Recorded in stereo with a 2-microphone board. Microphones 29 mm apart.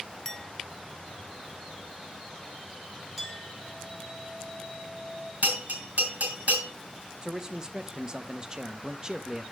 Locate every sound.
0.2 s a clink: 10° left (ahead or behind), 0.7 m
3.2 s a clink: 10° right (ahead or behind), 3 m
5.4 s a bell: 65° right (ahead or behind), 4 m
7.2 s a man speaking: 25° right (ahead or behind), 0.6 m